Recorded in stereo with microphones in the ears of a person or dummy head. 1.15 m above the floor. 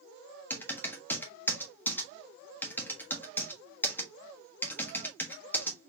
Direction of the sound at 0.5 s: 10° left (ahead or behind).